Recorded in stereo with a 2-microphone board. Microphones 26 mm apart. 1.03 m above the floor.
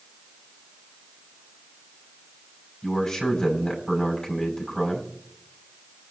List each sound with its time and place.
2.8 s a man speaking: 25° left (ahead or behind), 6.5 m